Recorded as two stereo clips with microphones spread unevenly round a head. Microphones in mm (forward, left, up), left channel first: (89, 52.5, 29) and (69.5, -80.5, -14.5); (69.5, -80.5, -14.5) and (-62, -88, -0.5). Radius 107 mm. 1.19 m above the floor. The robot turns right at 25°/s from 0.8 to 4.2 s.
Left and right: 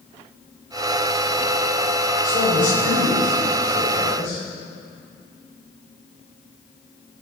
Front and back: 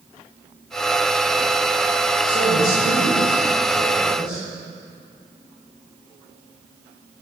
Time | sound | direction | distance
2.2 | a man speaking | 45° left | 5.5 m